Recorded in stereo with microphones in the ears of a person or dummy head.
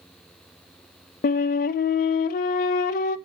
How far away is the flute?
About 0.7 m.